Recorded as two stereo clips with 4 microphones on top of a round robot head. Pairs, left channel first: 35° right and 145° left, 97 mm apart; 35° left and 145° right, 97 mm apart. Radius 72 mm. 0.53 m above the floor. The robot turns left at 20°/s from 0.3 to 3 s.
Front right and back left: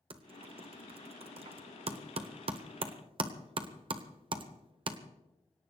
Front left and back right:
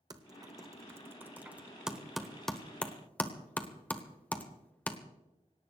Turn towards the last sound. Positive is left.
turn(degrees=115)